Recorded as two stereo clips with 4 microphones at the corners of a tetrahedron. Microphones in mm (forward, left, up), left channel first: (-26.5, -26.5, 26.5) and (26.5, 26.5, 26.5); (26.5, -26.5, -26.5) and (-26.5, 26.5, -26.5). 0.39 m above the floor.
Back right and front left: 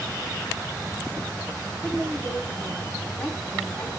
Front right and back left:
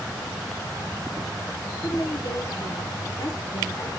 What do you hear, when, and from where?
1.8 s a woman speaking: 75° right, 2.5 m